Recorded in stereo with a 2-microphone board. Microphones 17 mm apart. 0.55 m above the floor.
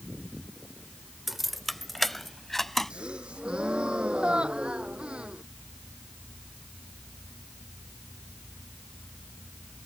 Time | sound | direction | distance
1.3 | keys jangling | 5° right (ahead or behind) | ?
2.9 | a gasp | 90° right | ?